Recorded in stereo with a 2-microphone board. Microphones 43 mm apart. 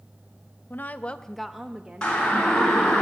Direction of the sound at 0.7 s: 50° left (ahead or behind).